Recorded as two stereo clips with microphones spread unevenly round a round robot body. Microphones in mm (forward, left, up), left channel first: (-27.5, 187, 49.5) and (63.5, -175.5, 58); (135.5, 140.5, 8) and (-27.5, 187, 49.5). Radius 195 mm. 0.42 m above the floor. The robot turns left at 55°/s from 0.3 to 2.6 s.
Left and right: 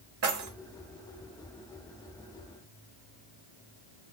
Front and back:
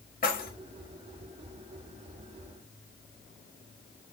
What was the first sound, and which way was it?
Keys jangling, 25° right.